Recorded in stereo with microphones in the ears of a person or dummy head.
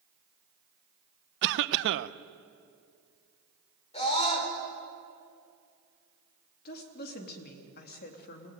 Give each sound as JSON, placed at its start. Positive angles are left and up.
{"t": 1.4, "sound": "a cough", "side_deg": -60, "distance_m": 0.9}
{"t": 3.9, "sound": "a scream", "side_deg": 30, "distance_m": 4.5}
{"t": 6.7, "sound": "a woman speaking", "side_deg": 60, "distance_m": 3.0}